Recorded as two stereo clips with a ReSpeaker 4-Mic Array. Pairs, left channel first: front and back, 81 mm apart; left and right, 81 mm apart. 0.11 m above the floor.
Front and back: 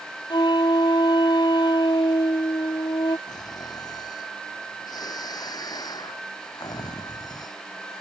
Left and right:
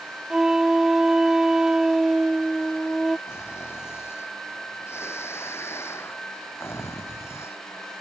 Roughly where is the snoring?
Ahead left.